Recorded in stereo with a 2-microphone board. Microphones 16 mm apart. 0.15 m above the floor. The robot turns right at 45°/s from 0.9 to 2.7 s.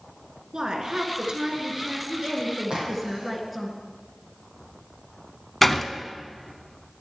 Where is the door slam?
10° left (ahead or behind), 0.7 m.